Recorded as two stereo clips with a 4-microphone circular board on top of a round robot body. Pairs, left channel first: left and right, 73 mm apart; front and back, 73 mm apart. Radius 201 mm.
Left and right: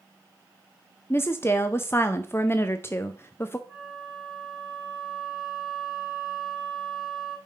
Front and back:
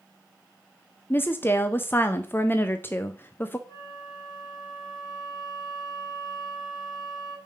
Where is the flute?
10° right, 3.5 m.